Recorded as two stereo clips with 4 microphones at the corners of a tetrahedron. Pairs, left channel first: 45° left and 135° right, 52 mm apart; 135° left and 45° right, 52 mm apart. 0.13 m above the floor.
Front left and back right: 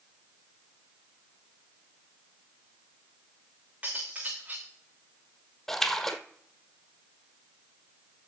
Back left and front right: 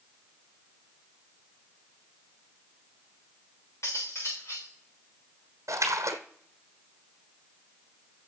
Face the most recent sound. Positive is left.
turn(degrees=-40)